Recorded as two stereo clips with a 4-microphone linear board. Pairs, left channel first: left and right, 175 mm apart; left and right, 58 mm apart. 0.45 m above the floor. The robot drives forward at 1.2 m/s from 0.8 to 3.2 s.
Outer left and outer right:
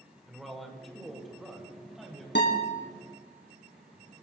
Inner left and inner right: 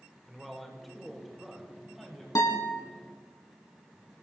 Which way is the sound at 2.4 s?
80° left.